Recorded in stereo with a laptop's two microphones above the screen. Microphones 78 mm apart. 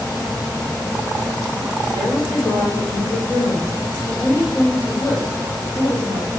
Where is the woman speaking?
60° left (ahead or behind), 3.5 m; by 6.3 s 20° left (ahead or behind), 4.5 m.